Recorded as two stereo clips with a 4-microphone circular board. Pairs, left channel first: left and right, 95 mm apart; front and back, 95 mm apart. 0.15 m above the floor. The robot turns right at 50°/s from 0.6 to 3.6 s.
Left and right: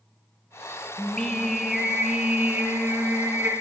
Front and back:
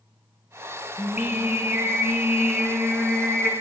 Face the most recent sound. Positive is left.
turn(degrees=-80)